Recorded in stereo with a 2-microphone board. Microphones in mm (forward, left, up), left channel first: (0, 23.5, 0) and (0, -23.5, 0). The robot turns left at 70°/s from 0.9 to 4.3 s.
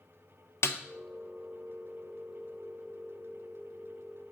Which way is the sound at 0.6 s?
65° left (ahead or behind).